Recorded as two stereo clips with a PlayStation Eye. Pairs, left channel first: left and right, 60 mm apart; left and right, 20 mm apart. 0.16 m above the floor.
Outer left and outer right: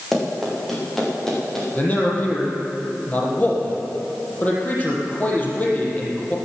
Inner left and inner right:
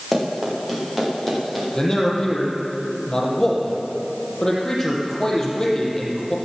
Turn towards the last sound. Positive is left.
turn(degrees=30)  # may be behind; listen again after turning